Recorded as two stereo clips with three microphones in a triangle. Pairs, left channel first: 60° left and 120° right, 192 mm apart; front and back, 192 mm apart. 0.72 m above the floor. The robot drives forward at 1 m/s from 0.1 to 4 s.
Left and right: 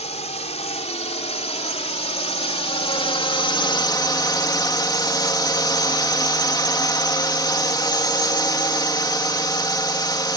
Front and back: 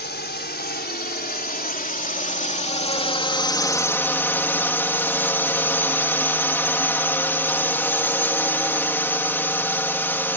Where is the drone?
10° left; by 10.4 s 60° left.